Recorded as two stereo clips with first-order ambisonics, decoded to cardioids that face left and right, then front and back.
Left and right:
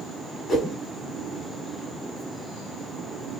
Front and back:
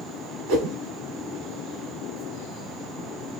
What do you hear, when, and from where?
0.5 s a whoosh: 175° left, 1.9 m